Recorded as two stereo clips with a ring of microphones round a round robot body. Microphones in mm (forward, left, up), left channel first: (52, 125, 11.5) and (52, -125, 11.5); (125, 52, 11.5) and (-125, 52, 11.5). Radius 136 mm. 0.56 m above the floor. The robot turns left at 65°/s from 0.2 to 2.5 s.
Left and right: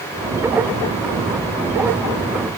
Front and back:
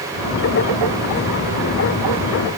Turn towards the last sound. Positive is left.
No sound to turn to.